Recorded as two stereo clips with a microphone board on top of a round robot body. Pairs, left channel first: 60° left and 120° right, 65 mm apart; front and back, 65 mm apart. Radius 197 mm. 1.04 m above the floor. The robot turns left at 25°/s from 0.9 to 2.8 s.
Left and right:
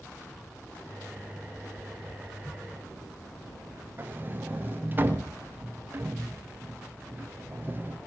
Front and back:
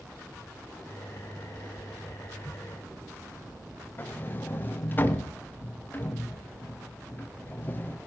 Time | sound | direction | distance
4.0 | a sliding door | 60° right | 1.8 m